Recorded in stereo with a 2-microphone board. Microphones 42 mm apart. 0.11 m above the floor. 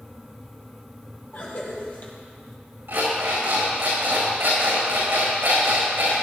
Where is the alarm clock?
65° right (ahead or behind), 5 m.